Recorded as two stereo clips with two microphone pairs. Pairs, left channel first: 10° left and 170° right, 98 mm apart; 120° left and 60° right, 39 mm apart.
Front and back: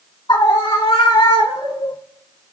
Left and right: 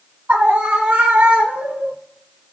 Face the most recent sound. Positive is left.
turn(degrees=-30)